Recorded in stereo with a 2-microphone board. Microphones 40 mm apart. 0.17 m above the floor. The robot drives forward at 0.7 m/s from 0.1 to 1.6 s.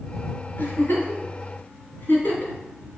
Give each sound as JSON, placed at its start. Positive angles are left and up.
{"t": 0.6, "sound": "a giggle", "side_deg": 55, "distance_m": 2.0}